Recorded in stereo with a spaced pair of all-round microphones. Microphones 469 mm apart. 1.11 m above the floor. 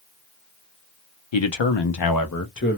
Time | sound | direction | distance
1.3 | a man speaking | 70° left (ahead or behind) | 0.7 m